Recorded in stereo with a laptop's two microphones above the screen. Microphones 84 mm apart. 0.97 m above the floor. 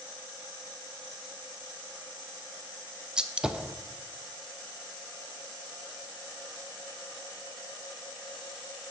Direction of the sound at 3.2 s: 10° right (ahead or behind).